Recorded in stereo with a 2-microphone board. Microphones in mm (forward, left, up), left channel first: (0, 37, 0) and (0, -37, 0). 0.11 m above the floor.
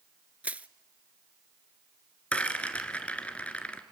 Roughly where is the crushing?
Centre.